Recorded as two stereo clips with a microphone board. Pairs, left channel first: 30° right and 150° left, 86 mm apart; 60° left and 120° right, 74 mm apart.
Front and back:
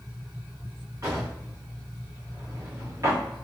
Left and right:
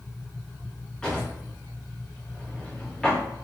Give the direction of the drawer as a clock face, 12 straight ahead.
8 o'clock.